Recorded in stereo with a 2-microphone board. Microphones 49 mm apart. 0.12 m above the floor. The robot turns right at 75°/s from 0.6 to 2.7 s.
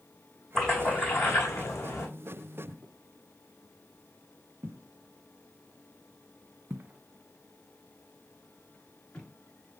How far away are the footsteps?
About 2.5 m.